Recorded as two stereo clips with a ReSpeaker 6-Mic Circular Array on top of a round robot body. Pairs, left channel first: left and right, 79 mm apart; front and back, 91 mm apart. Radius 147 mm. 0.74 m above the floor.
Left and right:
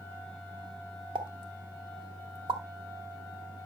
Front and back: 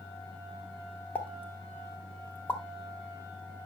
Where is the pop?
70° right, 1.6 m.